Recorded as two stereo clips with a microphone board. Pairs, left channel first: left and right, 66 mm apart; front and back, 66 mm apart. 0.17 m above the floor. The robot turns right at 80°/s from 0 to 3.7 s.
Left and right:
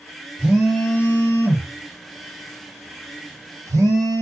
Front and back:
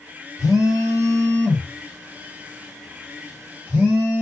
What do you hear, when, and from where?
0.4 s a phone buzzing: 15° right, 1.6 m; by 4.2 s 110° right, 1.6 m